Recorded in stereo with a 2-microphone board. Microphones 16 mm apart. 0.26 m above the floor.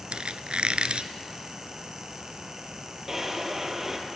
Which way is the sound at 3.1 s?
25° right (ahead or behind).